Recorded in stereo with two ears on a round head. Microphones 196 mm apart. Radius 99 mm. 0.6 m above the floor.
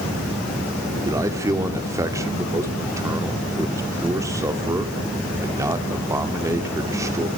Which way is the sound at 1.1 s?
15° right (ahead or behind).